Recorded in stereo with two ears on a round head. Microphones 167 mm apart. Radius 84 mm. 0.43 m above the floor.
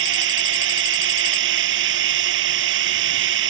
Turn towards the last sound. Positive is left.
turn(degrees=-75)  # may be behind; listen again after turning